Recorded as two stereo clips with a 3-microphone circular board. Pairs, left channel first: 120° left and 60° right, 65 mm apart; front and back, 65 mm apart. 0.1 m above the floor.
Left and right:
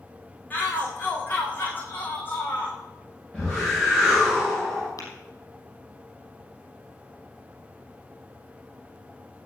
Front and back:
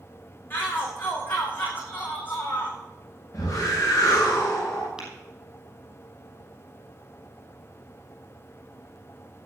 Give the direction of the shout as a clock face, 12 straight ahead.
10 o'clock.